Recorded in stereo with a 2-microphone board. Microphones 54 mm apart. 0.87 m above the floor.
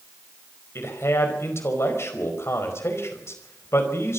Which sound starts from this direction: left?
A man speaking, at 0.8 s.